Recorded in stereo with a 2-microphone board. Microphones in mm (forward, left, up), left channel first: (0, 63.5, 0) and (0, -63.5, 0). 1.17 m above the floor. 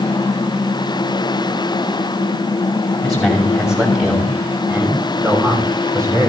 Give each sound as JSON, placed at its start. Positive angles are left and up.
{"t": 3.0, "sound": "a man speaking", "side_deg": 0, "distance_m": 6.5}